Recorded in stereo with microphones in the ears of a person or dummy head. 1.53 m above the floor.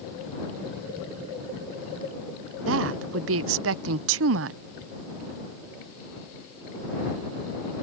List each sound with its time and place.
2.7 s a woman speaking: 70° right (ahead or behind)